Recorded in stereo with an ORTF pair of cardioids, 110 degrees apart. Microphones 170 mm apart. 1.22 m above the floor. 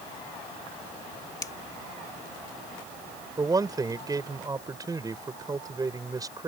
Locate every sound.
1.4 s a finger snap: 20° left
3.4 s a man speaking: 20° right